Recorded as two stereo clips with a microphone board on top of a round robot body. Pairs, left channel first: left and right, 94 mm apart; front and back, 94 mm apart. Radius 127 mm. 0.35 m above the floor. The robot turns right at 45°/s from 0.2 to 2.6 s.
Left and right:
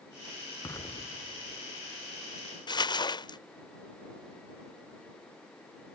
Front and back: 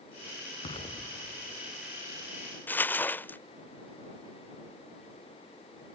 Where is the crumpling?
65° left.